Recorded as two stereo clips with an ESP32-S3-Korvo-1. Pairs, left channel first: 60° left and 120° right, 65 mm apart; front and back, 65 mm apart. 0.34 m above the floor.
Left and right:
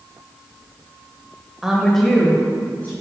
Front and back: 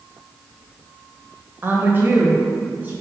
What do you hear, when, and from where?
1.6 s a woman speaking: 165° left, 1.2 m; by 2.9 s 120° left, 2 m